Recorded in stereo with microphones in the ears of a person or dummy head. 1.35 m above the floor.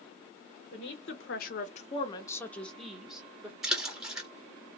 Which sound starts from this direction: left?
A woman speaking, at 0.7 s.